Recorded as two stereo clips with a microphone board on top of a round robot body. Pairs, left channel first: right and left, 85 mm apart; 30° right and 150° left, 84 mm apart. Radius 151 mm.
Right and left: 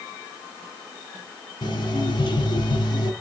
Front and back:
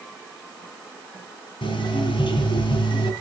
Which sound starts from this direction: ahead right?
An alarm clock, at 1.6 s.